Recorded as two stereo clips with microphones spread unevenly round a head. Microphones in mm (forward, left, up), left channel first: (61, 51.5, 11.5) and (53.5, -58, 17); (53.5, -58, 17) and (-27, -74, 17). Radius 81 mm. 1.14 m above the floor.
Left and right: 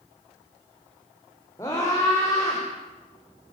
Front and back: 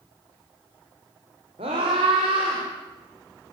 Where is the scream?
160° left, 5 m; by 2.6 s 165° left, 6 m.